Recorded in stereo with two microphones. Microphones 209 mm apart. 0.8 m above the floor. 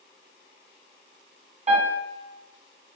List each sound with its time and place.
1.7 s a piano: 30° right (ahead or behind), 2 m